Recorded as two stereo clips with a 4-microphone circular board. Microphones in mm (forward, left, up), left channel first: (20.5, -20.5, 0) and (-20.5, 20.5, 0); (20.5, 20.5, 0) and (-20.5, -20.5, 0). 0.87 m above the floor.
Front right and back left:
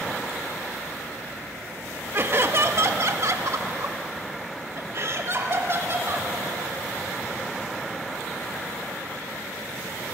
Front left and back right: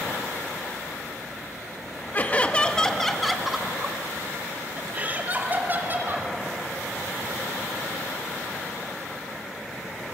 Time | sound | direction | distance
2.1 | laughter | 100° left | 1.4 m